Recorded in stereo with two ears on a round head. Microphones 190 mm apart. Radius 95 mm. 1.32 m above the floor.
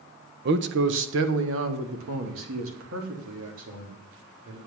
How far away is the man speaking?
About 0.7 m.